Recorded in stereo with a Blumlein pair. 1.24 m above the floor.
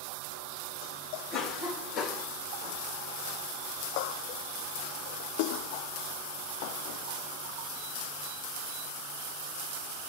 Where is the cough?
25° left, 1.3 m.